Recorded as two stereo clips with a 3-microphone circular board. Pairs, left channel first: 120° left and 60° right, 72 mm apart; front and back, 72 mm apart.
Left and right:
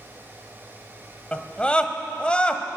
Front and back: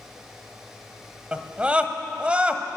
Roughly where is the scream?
Behind left.